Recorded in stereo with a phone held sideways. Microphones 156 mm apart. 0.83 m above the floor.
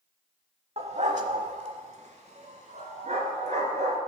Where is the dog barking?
40° right (ahead or behind), 0.7 m; by 4.0 s 50° right (ahead or behind), 3 m.